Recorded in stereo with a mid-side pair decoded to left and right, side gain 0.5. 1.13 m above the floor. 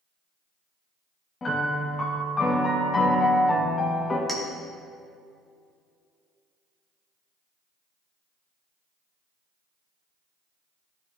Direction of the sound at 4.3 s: 5° left.